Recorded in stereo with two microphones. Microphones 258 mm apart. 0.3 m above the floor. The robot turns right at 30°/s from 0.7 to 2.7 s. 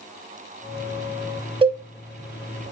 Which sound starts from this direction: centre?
A cowbell, at 1.6 s.